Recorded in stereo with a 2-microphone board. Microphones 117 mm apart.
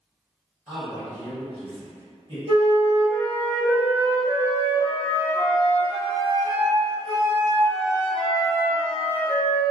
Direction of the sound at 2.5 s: 50° right (ahead or behind).